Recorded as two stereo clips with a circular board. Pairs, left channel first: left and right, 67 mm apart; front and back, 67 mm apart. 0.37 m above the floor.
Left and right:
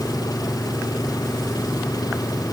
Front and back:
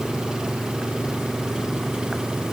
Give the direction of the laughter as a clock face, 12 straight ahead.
No laughter in this recording.